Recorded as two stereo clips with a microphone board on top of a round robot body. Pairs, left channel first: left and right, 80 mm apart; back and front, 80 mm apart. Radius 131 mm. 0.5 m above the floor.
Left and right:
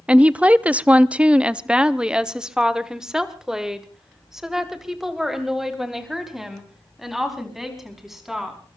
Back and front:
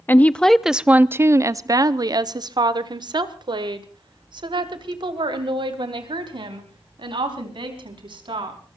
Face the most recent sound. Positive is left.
turn(degrees=-5)